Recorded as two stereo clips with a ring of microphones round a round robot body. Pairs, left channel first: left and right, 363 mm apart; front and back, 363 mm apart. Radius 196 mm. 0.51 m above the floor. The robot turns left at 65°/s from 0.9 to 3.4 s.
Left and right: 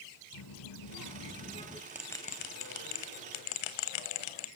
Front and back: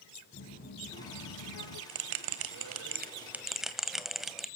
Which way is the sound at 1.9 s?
170° right.